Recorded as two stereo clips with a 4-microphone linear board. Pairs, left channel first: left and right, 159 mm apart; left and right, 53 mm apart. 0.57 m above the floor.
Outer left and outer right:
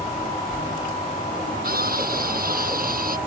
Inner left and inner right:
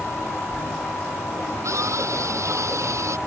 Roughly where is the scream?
Right.